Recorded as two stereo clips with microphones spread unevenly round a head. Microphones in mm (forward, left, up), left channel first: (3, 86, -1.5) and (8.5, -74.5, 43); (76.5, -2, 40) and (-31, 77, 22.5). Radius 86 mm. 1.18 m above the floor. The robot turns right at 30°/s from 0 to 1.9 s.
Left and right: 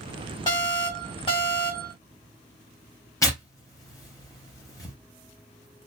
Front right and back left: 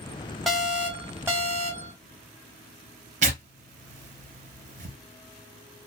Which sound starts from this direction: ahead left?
An alarm, at 0.5 s.